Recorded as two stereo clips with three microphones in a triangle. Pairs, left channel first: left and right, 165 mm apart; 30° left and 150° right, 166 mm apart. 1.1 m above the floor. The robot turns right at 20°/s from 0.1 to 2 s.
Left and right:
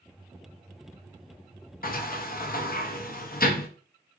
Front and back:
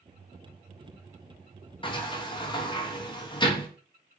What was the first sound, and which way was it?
A sliding door, 85° left.